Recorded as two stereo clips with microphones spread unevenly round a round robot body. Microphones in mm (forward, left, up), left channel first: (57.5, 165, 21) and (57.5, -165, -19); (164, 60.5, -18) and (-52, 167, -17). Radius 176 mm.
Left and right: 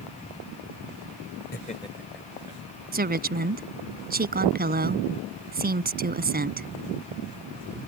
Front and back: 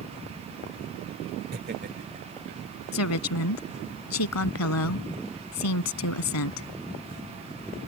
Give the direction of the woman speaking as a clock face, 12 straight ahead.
1 o'clock.